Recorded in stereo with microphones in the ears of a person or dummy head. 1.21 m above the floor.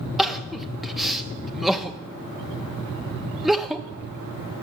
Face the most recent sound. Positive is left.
turn(degrees=0)  # may be behind; listen again after turning